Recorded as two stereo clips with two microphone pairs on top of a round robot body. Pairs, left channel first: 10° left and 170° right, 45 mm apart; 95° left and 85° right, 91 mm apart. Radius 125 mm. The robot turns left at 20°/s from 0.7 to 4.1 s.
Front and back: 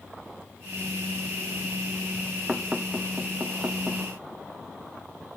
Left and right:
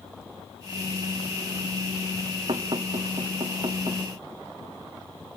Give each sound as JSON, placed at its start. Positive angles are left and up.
{"t": 2.5, "sound": "knocking", "azimuth_deg": -95, "distance_m": 0.9}